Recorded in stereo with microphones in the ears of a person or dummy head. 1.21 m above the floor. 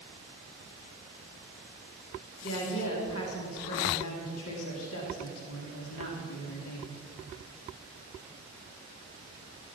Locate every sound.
2.4 s a woman speaking: 80° left, 2.5 m